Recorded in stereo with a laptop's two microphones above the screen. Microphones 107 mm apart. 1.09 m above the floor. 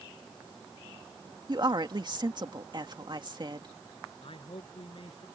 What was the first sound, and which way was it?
A woman speaking, 45° right (ahead or behind).